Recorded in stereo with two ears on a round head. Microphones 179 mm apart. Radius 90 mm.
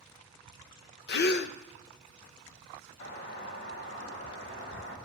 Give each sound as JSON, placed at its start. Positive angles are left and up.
{"t": 1.1, "sound": "a gasp", "side_deg": 55, "distance_m": 0.7}
{"t": 3.0, "sound": "a doorbell", "side_deg": 65, "distance_m": 3.0}